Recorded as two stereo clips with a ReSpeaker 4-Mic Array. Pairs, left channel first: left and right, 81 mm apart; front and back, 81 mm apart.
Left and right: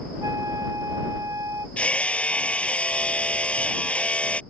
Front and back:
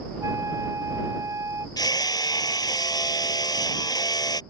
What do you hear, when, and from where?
0.2 s a flute: 135° right
1.8 s hammering: 20° left